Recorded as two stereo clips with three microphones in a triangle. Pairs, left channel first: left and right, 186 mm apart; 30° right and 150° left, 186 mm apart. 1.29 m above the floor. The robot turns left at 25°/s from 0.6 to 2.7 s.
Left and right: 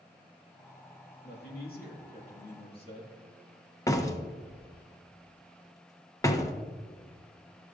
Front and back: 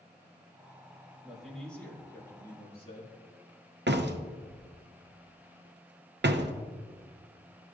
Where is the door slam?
160° left, 0.6 m.